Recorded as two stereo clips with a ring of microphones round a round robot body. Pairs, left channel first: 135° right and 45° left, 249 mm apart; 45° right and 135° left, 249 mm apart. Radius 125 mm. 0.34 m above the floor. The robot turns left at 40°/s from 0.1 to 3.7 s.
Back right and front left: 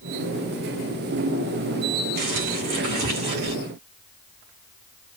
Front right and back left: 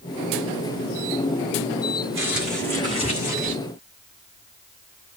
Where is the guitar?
I don't hear a guitar.